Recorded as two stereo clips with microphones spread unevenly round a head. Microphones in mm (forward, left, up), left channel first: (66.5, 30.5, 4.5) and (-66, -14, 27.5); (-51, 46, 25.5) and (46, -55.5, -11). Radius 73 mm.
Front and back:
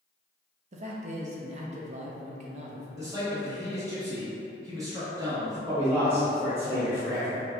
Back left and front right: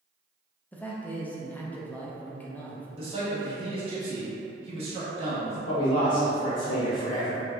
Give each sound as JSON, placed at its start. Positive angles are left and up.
{"t": 0.7, "sound": "a man speaking", "azimuth_deg": -135, "distance_m": 0.6}
{"t": 3.0, "sound": "a man speaking", "azimuth_deg": -90, "distance_m": 1.1}
{"t": 5.7, "sound": "a man speaking", "azimuth_deg": 125, "distance_m": 0.8}